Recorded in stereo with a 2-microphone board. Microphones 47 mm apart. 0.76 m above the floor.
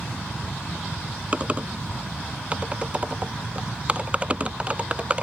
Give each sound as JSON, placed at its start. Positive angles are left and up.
{"t": 1.3, "sound": "typing on a keyboard", "side_deg": -25}